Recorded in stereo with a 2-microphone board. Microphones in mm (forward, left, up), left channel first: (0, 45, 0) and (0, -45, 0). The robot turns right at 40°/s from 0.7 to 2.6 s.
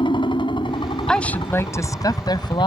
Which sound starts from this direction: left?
A helicopter, at 0.0 s.